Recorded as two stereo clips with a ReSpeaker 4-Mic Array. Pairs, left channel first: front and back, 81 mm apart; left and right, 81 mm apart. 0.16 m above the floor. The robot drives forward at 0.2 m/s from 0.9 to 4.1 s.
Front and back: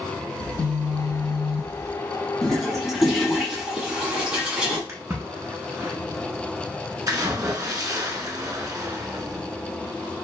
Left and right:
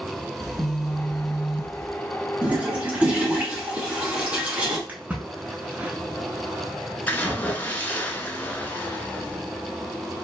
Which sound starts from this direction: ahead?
A phone buzzing, at 0.4 s.